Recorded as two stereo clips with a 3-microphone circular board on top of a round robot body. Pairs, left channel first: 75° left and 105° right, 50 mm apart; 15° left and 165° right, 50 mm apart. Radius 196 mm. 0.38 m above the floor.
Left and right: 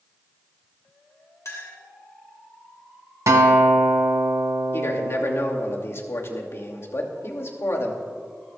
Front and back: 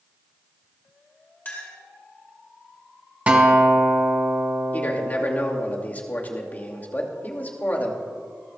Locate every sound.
1.4 s a clink: 70° left, 3 m
3.3 s a guitar: 100° right, 1.6 m
4.7 s a man speaking: 65° left, 2.5 m